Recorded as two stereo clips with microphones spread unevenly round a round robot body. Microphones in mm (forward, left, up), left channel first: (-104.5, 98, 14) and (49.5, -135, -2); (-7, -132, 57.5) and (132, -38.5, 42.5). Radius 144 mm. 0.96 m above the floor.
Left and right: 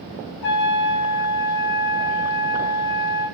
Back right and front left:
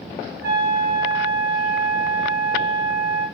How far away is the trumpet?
About 1.7 m.